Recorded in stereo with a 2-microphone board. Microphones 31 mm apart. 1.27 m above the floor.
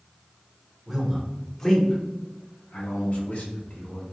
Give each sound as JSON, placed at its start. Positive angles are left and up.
{"t": 0.9, "sound": "a man speaking", "side_deg": -5, "distance_m": 1.0}